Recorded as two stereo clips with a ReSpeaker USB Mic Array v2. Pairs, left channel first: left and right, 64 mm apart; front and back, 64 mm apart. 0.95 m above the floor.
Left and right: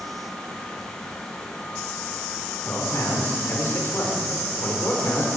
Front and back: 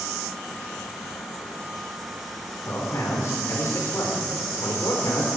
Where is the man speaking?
40° left, 3 m.